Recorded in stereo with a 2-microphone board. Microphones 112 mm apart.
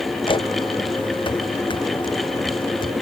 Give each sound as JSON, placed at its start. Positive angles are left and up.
{"t": 0.2, "sound": "footsteps", "side_deg": 45}